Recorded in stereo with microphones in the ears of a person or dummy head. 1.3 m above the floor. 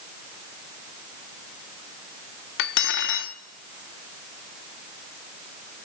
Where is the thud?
No thud in this recording.